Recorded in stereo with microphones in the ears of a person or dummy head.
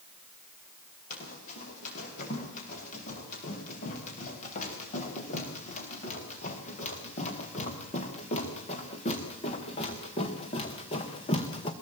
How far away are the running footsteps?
About 9 m.